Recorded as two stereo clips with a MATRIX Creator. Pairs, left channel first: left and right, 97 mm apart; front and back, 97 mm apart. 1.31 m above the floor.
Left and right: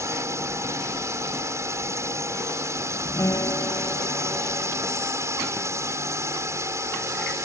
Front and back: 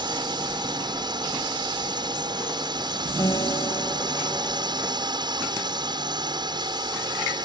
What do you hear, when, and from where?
0.0 s a drone: 145° right
3.2 s a guitar: 40° left